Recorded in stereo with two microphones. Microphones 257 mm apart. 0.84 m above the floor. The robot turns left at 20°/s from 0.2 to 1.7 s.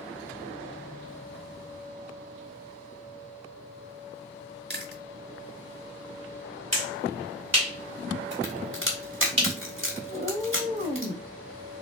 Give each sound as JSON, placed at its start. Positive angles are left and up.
{"t": 4.7, "sound": "chewing", "side_deg": -40, "distance_m": 0.8}
{"t": 6.7, "sound": "a finger snap", "side_deg": -75, "distance_m": 2.0}
{"t": 8.4, "sound": "a crack", "side_deg": -50, "distance_m": 1.5}
{"t": 10.1, "sound": "a cat meowing", "side_deg": -35, "distance_m": 1.2}